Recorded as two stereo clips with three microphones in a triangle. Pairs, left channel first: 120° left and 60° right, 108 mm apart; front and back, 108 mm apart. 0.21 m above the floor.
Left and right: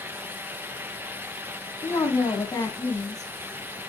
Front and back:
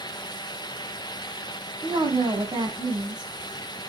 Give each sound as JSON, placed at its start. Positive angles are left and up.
{"t": 1.8, "sound": "a woman speaking", "azimuth_deg": 160, "distance_m": 1.4}